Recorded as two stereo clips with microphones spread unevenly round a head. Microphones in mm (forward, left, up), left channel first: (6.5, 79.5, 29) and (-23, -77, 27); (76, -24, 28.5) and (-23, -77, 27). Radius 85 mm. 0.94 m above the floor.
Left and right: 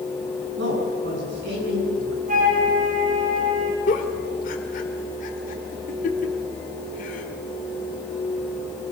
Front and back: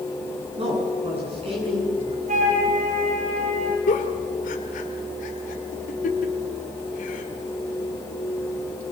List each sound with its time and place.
0.6 s a man speaking: 115° right, 9.5 m
2.3 s a flute: 145° right, 6 m
3.9 s a giggle: 35° left, 2 m